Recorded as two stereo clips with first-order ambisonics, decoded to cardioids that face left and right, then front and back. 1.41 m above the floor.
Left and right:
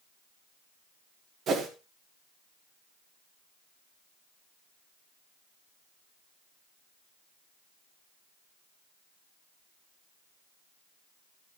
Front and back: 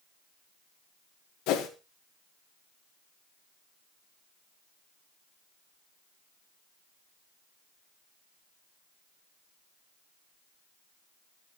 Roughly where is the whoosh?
Ahead right.